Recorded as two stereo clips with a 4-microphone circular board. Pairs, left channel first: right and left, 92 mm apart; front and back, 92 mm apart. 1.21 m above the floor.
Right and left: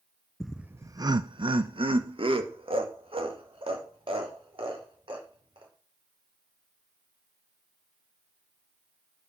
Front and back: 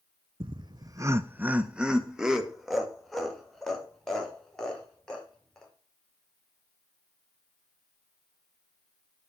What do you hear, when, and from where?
0.4 s laughter: 175° right, 0.5 m; by 5.7 s 85° left, 4.5 m